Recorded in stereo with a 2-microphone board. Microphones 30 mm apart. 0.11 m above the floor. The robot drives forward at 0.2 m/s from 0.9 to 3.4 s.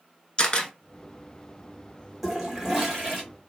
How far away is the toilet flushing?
About 1.1 m.